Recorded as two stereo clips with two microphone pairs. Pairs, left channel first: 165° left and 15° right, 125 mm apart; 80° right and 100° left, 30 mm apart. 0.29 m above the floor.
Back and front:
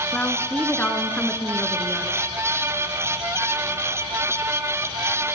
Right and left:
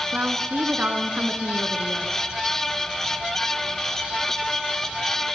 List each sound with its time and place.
0.1 s a woman speaking: 90° left, 3.5 m